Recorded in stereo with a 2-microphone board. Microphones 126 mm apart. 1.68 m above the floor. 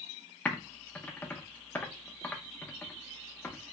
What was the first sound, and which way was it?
Typing on a keyboard, 15° left (ahead or behind).